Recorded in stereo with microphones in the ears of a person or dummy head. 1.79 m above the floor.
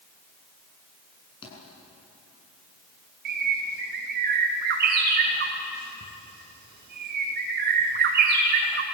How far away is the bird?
About 2.5 m.